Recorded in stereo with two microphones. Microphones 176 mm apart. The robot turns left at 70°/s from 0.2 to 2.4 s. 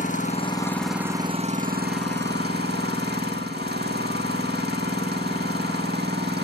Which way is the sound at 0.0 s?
45° left.